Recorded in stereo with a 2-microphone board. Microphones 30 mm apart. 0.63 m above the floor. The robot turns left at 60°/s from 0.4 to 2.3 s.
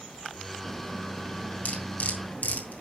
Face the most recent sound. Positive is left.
turn(degrees=75)  # may be behind; listen again after turning